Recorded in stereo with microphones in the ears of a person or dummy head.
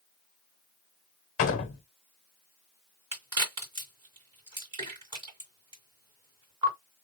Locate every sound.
1.4 s a door slam: 40° left (ahead or behind), 0.9 m
3.1 s a crack: 20° right (ahead or behind), 2.5 m